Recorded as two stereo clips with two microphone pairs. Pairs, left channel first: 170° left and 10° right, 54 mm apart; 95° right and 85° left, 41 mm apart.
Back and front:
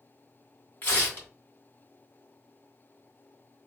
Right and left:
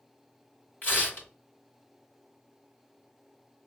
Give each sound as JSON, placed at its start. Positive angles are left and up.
{"t": 0.8, "sound": "tearing paper", "azimuth_deg": -145, "distance_m": 2.5}